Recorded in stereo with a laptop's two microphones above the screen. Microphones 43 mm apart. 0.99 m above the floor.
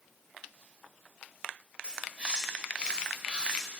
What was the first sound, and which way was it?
A bird, 25° right (ahead or behind).